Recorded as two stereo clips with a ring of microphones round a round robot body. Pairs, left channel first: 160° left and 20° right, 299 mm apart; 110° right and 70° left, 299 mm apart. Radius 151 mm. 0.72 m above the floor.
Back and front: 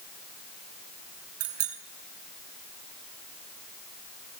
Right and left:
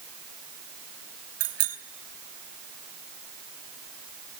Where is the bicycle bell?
25° left, 6 m.